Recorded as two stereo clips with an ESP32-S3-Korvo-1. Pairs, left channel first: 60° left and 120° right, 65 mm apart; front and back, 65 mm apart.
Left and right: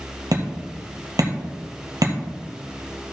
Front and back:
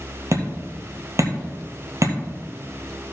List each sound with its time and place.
0.3 s hammering: 145° right, 1.8 m